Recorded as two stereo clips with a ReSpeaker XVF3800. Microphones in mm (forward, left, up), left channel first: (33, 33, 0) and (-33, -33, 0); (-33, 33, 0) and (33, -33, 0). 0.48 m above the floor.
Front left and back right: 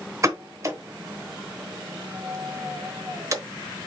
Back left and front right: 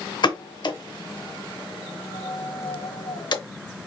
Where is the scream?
I don't hear a scream.